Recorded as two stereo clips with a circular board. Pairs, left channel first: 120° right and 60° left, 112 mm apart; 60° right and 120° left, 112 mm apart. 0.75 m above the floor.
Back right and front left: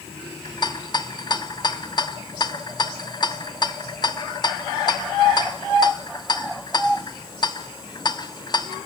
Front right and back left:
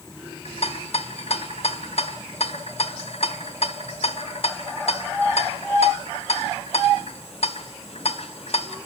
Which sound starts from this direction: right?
A rattle, at 0.5 s.